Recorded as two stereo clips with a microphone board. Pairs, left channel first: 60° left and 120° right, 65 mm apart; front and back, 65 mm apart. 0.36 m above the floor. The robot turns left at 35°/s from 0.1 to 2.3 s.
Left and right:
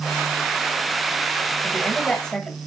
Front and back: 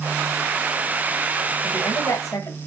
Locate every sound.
1.6 s a woman speaking: 5° left, 1.8 m; by 2.6 s 20° right, 1.8 m